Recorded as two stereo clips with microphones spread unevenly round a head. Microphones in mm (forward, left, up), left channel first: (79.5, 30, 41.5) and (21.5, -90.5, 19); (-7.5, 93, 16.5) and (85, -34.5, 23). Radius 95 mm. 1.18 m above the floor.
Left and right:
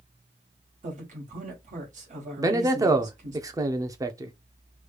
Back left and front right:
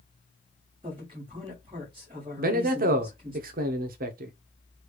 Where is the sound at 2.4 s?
65° right, 0.7 m.